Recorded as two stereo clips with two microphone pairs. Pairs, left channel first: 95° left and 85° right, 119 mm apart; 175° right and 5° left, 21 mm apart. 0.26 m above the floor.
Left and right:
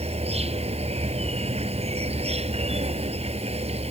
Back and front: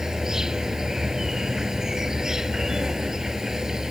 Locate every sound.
0.0 s an insect: 60° right